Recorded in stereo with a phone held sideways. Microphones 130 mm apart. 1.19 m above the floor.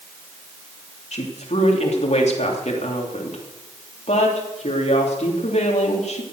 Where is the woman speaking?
55° left (ahead or behind), 3 m.